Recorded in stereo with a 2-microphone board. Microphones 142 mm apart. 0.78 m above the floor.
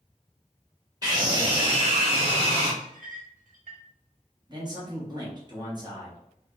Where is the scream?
25° right (ahead or behind), 1.4 m; by 2.7 s 45° right (ahead or behind), 1.7 m.